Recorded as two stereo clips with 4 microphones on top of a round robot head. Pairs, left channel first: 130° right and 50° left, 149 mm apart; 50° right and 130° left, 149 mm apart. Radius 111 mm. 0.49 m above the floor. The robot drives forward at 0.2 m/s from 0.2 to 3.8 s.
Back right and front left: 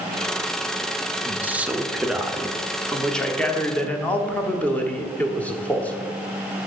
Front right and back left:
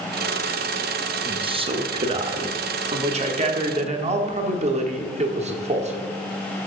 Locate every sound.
1.2 s a man speaking: 120° left, 0.8 m; by 6.1 s 155° left, 1.0 m